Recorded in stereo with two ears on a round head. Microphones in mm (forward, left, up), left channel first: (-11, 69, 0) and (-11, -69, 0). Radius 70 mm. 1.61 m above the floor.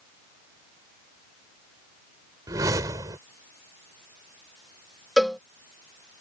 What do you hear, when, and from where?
2.5 s a whoosh: 20° right (ahead or behind)
5.2 s a cowbell: centre (ahead or behind)